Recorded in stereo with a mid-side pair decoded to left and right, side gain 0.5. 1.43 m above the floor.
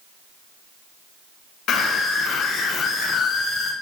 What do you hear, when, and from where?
1.7 s a scream: 60° left, 6 m; by 3.7 s 65° left, 5 m